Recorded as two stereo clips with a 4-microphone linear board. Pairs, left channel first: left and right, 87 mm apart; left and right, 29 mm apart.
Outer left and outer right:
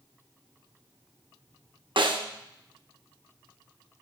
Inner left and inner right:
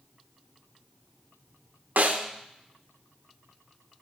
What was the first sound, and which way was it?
A snare drum, 75° right (ahead or behind).